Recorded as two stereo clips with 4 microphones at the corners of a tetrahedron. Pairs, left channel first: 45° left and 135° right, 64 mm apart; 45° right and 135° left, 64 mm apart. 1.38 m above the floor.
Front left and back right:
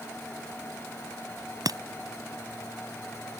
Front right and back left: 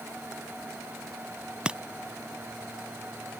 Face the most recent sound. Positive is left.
turn(degrees=-150)